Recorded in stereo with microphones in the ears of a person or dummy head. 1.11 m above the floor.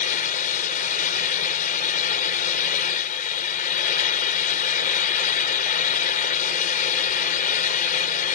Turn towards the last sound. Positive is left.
turn(degrees=50)  # may be behind; listen again after turning